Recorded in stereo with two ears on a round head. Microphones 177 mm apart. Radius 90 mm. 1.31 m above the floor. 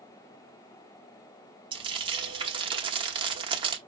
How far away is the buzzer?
No buzzer in this recording.